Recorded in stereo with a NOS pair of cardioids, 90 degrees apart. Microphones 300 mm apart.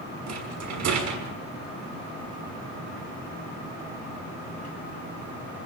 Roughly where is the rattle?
Ahead right.